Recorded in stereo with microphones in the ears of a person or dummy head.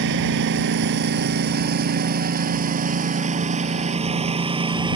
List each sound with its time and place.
0.0 s a lawn mower: 60° right (ahead or behind); by 5.0 s 20° right (ahead or behind)